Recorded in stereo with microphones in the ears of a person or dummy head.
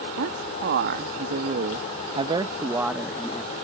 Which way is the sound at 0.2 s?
65° right (ahead or behind).